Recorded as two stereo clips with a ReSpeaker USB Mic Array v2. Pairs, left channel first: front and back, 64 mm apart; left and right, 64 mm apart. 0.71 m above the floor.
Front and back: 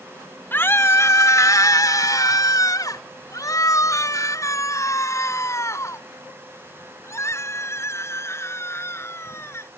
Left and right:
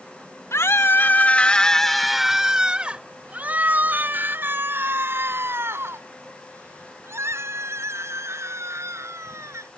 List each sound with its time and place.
0.5 s a scream: 55° left; by 9.7 s 45° right